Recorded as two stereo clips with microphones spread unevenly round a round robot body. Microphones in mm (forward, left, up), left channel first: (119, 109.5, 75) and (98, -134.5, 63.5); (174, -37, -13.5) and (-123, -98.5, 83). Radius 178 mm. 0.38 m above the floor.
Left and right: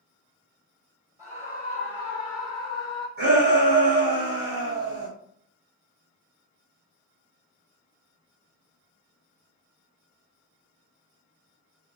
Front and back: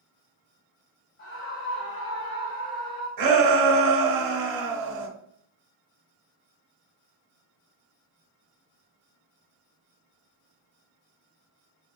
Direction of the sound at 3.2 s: 145° right.